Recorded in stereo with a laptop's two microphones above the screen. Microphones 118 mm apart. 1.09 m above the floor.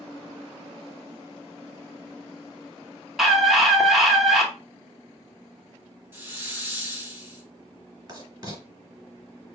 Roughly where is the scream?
Centre.